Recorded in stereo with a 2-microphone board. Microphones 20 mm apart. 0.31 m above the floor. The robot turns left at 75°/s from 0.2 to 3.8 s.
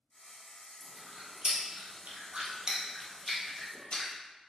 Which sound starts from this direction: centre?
Chewing, at 0.8 s.